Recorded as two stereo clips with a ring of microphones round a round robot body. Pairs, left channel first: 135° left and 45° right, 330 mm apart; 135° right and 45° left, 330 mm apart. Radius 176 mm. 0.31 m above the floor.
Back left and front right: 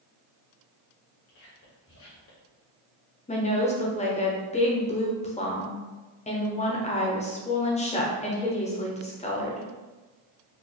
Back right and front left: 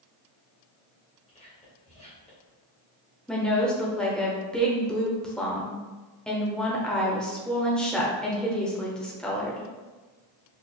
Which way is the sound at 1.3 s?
160° left.